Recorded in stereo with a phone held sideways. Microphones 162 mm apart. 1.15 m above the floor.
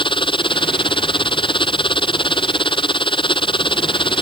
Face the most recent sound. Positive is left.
turn(degrees=30)  # may be behind; listen again after turning